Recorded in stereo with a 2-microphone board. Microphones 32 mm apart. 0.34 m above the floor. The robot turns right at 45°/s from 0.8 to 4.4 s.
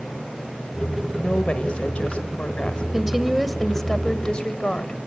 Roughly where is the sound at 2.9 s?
Ahead right.